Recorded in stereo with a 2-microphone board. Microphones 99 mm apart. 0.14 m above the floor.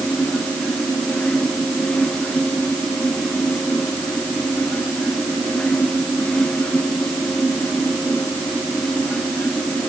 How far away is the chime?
No chime in this recording.